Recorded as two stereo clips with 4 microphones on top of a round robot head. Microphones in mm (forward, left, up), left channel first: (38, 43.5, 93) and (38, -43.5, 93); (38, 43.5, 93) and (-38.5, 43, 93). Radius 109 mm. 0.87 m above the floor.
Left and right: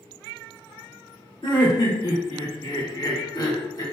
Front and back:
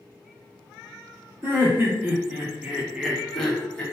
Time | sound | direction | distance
1.4 | laughter | 120° left | 1.9 m